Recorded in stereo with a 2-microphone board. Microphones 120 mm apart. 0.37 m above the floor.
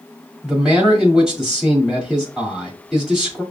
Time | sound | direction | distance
0.4 | a man speaking | 5° right (ahead or behind) | 1.8 m